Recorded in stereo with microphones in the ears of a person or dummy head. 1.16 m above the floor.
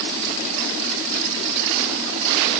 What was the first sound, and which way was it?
Only background noise.